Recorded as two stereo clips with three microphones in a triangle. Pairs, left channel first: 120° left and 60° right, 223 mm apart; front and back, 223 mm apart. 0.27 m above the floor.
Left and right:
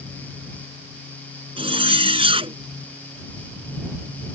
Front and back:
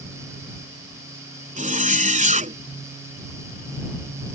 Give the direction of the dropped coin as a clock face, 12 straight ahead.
No dropped coin in this recording.